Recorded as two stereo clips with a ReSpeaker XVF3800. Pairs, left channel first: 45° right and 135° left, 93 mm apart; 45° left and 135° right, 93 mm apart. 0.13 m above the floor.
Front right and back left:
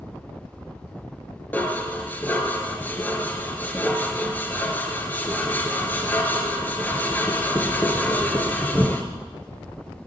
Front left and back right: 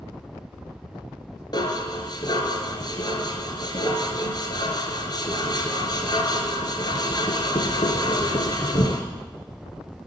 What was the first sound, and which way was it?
Dishes clattering, 20° left.